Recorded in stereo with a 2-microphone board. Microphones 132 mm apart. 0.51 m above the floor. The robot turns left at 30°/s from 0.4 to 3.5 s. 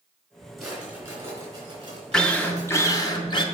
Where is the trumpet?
I don't hear a trumpet.